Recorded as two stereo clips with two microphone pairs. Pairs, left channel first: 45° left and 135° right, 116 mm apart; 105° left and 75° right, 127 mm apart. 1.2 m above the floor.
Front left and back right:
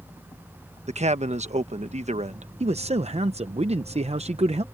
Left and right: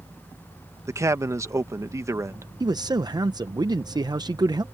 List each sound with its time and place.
0.9 s a man speaking: 140° right
2.6 s a man speaking: 130° right